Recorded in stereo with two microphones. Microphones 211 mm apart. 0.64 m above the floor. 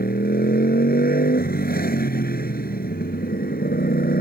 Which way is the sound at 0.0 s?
45° left (ahead or behind).